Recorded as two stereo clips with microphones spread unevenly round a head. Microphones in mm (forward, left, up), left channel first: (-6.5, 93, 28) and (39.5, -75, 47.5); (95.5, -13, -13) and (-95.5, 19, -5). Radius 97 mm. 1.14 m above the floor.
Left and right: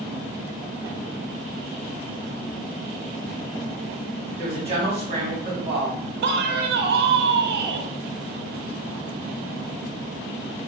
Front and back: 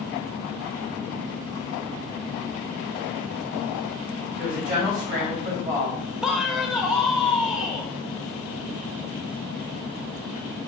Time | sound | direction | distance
4.4 | a woman speaking | 135° right | 3 m
6.2 | a man speaking | 100° right | 0.8 m